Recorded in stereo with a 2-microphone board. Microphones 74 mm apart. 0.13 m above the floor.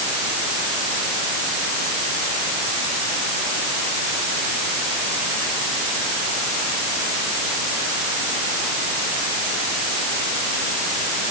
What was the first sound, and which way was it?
Only background noise.